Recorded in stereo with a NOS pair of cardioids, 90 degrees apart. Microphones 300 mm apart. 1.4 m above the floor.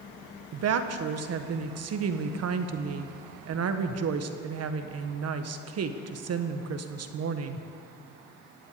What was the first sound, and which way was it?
A woman speaking, 60° right.